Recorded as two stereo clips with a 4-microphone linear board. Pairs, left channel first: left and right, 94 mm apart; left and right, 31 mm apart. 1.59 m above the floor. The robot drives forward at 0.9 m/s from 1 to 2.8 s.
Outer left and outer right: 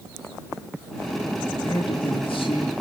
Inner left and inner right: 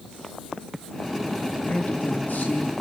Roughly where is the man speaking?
Left.